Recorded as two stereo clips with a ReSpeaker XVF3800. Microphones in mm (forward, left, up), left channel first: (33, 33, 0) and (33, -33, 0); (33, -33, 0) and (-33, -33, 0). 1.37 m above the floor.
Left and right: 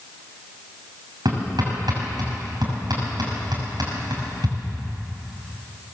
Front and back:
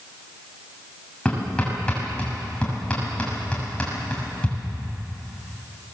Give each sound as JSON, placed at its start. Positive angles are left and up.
{"t": 1.2, "sound": "hammering", "azimuth_deg": -75, "distance_m": 7.0}